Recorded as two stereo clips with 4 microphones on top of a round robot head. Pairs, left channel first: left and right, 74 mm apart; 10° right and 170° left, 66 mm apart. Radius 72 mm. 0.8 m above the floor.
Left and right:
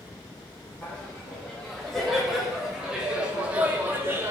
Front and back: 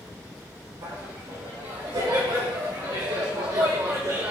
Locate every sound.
0.8 s laughter: 165° left, 2.5 m; by 4.3 s 145° right, 1.5 m